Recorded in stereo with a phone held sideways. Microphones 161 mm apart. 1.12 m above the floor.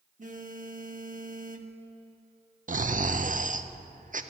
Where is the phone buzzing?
55° right (ahead or behind), 0.9 m.